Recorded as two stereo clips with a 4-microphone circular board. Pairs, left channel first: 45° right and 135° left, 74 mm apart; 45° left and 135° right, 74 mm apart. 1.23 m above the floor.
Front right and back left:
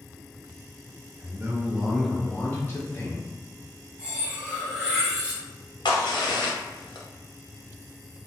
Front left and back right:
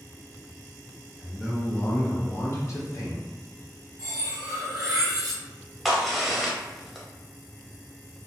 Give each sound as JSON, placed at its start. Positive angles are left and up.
{"t": 1.2, "sound": "a man speaking", "azimuth_deg": 140, "distance_m": 0.6}
{"t": 4.0, "sound": "cutlery clinking", "azimuth_deg": -155, "distance_m": 1.0}
{"t": 5.8, "sound": "a crack", "azimuth_deg": -45, "distance_m": 0.6}